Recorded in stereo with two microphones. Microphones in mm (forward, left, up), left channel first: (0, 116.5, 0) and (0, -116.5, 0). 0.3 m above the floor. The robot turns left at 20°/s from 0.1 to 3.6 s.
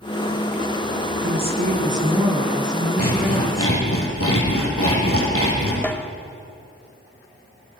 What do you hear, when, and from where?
1.2 s a woman speaking: 135° right, 3.5 m; by 3.8 s straight behind, 3.5 m
3.0 s sawing: 80° left, 5.5 m; by 5.7 s 70° left (ahead or behind), 5.5 m
5.8 s a snare drum: 5° left (ahead or behind), 1.0 m